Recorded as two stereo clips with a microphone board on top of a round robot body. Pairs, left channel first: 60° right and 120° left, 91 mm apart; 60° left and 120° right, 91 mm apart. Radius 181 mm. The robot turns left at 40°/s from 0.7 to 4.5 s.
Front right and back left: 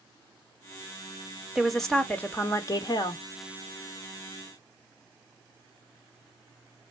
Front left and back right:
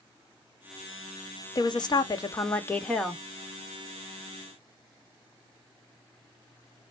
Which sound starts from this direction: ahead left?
A woman speaking, at 1.6 s.